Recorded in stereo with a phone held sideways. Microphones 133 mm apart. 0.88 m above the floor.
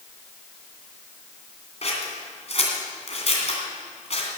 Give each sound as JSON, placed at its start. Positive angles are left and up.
{"t": 1.8, "sound": "scissors", "side_deg": 55, "distance_m": 2.5}